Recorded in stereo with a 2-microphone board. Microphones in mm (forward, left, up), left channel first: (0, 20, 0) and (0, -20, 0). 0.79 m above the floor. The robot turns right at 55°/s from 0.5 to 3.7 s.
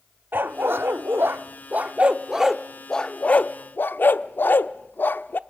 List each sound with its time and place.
0.3 s a dog barking: 60° right (ahead or behind), 0.7 m; by 5.4 s 60° left (ahead or behind), 0.7 m